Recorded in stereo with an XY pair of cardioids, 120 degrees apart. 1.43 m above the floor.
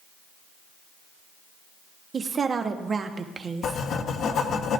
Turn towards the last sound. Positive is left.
turn(degrees=60)